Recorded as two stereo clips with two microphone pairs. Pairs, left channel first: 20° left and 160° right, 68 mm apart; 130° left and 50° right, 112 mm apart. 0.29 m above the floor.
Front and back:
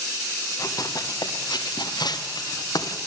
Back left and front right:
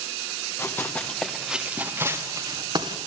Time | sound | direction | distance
0.6 | running footsteps | 65° left | 2.5 m